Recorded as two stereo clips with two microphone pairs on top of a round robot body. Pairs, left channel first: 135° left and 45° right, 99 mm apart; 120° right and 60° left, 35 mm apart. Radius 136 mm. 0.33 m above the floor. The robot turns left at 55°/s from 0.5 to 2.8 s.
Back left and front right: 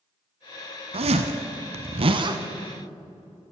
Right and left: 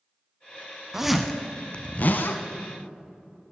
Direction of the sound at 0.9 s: 15° right.